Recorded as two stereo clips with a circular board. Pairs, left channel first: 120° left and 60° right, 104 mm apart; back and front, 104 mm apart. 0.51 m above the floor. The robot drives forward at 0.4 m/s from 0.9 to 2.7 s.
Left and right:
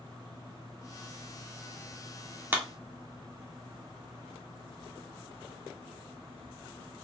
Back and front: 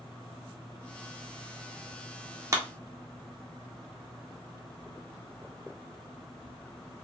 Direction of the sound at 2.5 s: 5° right.